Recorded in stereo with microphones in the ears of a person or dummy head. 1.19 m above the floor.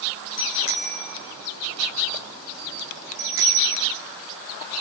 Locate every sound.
0.4 s a bicycle bell: 70° left (ahead or behind), 4 m; by 3.9 s 30° right (ahead or behind), 2.5 m